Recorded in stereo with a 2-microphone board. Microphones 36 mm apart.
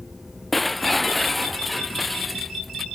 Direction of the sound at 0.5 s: Centre (ahead or behind).